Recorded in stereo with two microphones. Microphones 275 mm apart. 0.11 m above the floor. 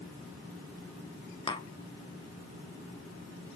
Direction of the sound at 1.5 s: 20° left (ahead or behind).